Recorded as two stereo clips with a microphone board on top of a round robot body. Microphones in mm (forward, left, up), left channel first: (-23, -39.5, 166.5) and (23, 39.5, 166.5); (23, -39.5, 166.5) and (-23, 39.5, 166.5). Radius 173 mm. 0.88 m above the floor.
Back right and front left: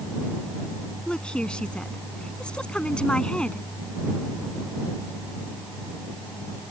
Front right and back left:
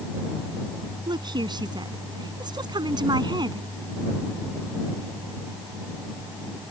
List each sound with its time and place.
1.1 s a woman speaking: 160° left